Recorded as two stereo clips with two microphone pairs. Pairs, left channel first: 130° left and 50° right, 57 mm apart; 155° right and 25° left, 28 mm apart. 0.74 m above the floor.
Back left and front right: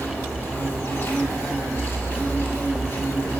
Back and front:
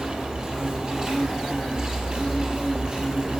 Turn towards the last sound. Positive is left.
turn(degrees=85)